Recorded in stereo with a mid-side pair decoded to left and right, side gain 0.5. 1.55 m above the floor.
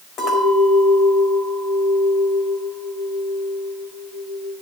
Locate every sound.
0.2 s a clink: 65° left, 4.5 m